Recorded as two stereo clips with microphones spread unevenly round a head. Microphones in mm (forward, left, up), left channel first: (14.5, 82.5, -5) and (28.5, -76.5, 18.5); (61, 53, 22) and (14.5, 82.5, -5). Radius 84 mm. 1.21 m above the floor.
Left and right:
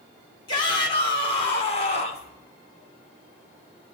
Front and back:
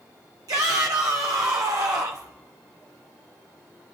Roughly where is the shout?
Behind.